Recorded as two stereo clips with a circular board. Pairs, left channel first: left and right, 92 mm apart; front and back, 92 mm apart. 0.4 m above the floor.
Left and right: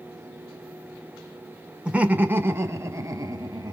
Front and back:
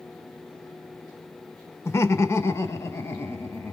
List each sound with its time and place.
1.9 s laughter: 20° right, 1.1 m; by 3.7 s 55° right, 1.7 m